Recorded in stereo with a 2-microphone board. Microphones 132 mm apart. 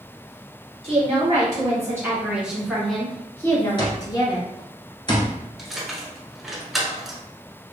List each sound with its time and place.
0.8 s a woman speaking: 40° right (ahead or behind), 1.8 m; by 4.5 s 35° left (ahead or behind), 1.7 m
3.8 s an alarm clock: 35° left (ahead or behind), 1.0 m
5.6 s keys jangling: centre (ahead or behind), 1.2 m